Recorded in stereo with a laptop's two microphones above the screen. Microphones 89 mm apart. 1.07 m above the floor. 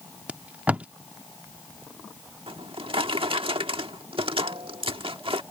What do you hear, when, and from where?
0.3 s tape being pulled: 15° right (ahead or behind)
2.5 s a drawer: 85° right